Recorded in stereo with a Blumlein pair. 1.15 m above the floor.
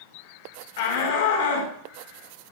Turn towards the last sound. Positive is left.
turn(degrees=55)